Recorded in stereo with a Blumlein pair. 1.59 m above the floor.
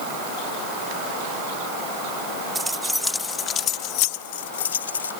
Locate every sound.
2.5 s keys jangling: 5° right; by 5.1 s 70° left